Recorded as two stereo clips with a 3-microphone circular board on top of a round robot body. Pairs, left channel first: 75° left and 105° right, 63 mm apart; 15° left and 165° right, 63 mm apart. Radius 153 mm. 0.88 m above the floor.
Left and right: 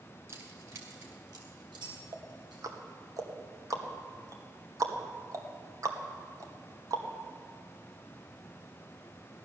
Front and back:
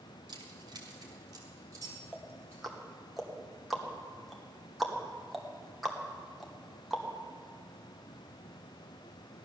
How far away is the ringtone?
No ringtone in this recording.